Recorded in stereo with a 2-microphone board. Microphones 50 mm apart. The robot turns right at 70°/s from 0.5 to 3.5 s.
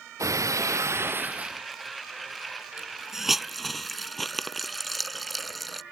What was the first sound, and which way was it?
Breaking glass, 90° right.